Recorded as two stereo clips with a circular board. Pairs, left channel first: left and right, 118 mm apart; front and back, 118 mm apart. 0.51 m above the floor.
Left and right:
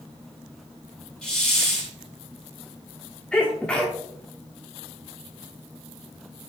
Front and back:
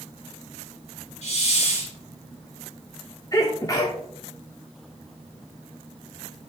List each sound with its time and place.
1.2 s a hiss: 5° left, 3.5 m
3.3 s a sneeze: 20° left, 1.0 m